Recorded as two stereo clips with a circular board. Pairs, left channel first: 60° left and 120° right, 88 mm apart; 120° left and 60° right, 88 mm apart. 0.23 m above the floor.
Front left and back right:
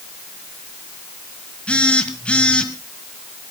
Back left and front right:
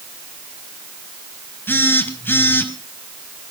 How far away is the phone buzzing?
About 1.6 m.